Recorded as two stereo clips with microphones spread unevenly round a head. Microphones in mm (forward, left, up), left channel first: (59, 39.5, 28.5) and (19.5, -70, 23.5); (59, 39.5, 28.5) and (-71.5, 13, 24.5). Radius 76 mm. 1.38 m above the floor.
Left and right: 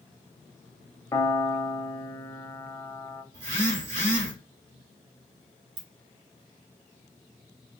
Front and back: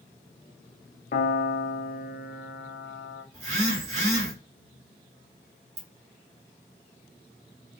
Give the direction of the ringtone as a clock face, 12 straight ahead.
4 o'clock.